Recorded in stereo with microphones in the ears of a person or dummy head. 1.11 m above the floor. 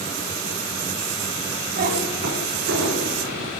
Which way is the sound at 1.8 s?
35° right (ahead or behind).